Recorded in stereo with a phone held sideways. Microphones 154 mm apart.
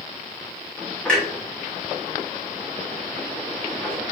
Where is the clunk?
5° left (ahead or behind), 1.2 m.